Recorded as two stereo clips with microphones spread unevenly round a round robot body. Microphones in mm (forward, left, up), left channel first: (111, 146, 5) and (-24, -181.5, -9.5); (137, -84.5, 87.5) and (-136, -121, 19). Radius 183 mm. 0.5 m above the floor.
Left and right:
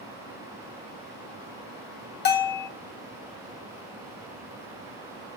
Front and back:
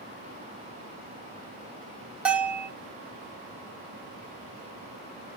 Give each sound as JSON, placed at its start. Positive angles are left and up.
{"t": 2.2, "sound": "a bell", "azimuth_deg": 120, "distance_m": 0.7}